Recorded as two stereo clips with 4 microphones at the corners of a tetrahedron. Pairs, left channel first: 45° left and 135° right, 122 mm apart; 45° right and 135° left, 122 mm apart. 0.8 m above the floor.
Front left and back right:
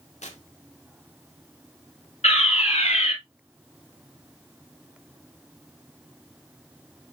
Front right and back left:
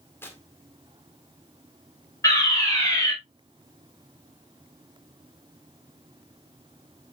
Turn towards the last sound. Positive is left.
turn(degrees=20)